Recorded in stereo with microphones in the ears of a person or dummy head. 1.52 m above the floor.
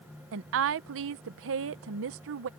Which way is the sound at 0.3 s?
70° right (ahead or behind).